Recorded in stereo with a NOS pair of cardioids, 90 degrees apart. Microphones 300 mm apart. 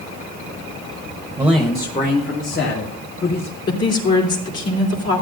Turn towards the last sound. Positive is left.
turn(degrees=55)